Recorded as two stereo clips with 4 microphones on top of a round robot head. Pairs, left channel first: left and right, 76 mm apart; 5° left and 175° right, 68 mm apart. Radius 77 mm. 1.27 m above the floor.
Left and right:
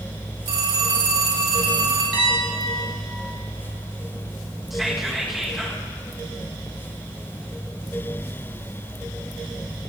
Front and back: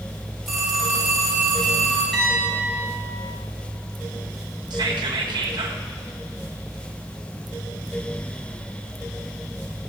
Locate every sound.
0.5 s a phone ringing: 90° right, 4.5 m
2.1 s a piano: 85° right, 4.5 m
4.7 s whispering: 175° right, 1.4 m